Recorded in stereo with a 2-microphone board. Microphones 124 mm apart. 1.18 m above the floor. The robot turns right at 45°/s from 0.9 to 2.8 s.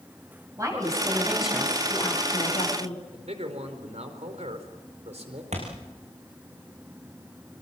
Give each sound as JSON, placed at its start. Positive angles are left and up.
{"t": 0.6, "sound": "a woman speaking", "azimuth_deg": -25, "distance_m": 9.0}
{"t": 3.1, "sound": "a man speaking", "side_deg": -65, "distance_m": 4.0}
{"t": 5.5, "sound": "a thud", "side_deg": -70, "distance_m": 7.0}